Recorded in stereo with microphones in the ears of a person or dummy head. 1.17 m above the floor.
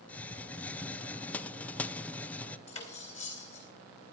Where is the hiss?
5° left (ahead or behind), 0.6 m.